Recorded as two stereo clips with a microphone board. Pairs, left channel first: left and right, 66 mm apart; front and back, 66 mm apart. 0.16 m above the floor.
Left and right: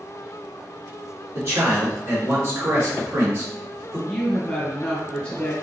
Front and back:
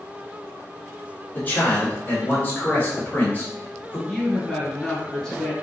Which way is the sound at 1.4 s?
60° right.